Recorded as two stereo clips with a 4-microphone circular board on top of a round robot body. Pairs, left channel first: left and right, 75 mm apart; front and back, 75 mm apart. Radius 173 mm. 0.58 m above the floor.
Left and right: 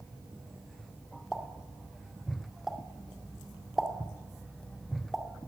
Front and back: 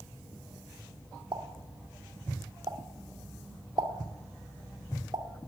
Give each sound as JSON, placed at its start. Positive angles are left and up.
{"t": 1.3, "sound": "a pop", "azimuth_deg": -175, "distance_m": 2.5}